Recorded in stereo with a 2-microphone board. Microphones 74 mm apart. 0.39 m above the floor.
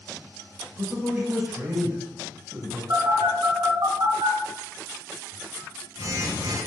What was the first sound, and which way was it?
A man speaking, 25° right (ahead or behind).